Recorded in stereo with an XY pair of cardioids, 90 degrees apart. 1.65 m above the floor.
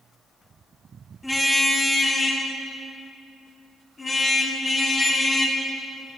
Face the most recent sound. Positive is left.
turn(degrees=35)